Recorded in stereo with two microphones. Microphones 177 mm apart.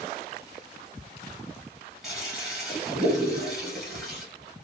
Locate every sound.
2.0 s a toilet flushing: 5° right (ahead or behind), 1.5 m